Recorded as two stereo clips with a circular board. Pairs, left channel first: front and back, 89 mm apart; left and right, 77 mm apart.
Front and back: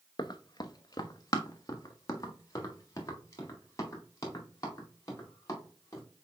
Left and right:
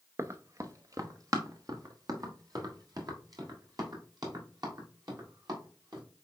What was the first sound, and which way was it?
Running footsteps, 35° right.